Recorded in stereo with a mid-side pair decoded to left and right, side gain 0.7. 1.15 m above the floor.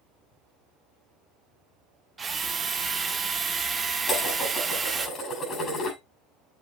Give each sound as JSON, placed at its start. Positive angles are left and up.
{"t": 2.2, "sound": "a drill", "azimuth_deg": -25, "distance_m": 1.8}
{"t": 4.1, "sound": "dishes clattering", "azimuth_deg": 35, "distance_m": 8.0}